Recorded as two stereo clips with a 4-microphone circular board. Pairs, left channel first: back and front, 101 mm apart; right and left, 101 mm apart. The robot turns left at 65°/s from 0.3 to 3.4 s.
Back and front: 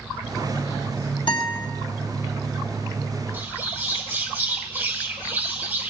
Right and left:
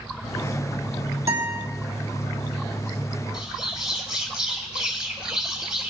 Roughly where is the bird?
Ahead left.